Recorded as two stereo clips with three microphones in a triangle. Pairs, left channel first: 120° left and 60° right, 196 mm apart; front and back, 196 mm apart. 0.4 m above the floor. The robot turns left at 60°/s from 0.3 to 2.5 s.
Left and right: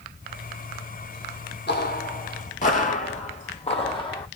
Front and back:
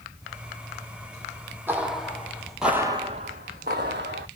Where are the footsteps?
105° left, 0.7 m; by 4.3 s straight behind, 0.9 m.